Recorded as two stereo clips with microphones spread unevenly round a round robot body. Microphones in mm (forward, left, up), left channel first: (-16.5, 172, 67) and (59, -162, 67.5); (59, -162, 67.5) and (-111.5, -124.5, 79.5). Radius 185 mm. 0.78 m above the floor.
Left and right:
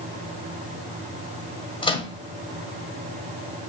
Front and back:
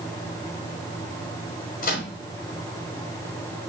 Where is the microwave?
25° left, 1.4 m.